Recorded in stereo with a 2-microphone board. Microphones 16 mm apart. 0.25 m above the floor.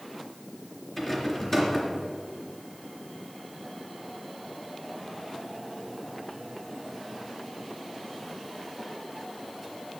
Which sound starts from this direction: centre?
A rattle, at 1.0 s.